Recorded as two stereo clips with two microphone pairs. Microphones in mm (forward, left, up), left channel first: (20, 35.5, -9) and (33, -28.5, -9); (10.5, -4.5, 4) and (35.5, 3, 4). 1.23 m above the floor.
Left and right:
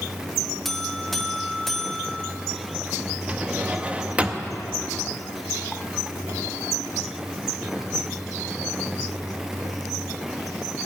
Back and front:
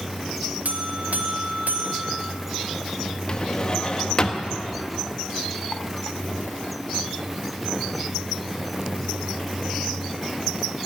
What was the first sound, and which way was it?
A buzzer, 15° left.